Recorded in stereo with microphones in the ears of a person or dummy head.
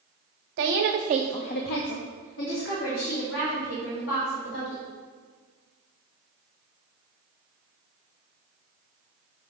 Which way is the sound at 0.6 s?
60° right (ahead or behind).